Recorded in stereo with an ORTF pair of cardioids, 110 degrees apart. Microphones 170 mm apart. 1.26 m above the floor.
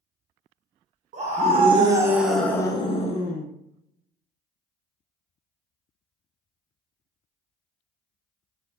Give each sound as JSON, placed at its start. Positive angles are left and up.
{"t": 1.1, "sound": "a scream", "azimuth_deg": -45, "distance_m": 1.1}